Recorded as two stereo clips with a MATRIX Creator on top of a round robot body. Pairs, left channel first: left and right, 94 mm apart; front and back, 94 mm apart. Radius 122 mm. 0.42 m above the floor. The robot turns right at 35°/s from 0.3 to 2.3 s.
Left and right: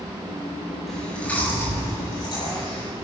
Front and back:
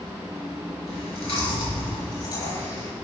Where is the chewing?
Straight ahead, 5.5 m; by 2.9 s 50° left, 5.5 m.